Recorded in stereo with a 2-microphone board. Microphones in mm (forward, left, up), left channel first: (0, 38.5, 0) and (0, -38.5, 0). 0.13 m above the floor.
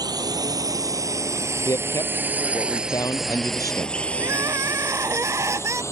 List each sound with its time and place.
0.0 s a drone: 60° right (ahead or behind); by 5.9 s 40° left (ahead or behind)
1.6 s a man speaking: 50° left (ahead or behind)
4.2 s crying: 40° right (ahead or behind)